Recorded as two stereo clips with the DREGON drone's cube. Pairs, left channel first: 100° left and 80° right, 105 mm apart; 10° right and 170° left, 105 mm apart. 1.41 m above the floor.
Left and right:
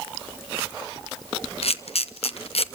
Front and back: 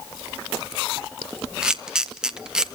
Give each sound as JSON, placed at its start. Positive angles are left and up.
{"t": 1.6, "sound": "a camera shutter", "azimuth_deg": 85, "distance_m": 0.9}